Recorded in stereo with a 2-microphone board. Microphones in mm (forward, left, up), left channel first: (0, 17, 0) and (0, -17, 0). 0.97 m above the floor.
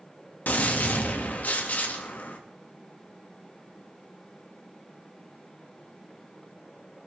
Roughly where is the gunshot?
Left.